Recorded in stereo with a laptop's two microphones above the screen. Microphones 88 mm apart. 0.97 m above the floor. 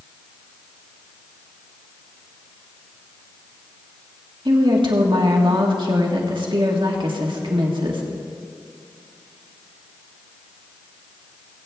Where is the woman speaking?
65° right (ahead or behind), 1.5 m.